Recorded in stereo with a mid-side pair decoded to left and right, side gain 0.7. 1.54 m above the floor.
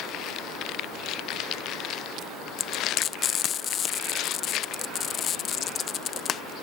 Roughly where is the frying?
Ahead left.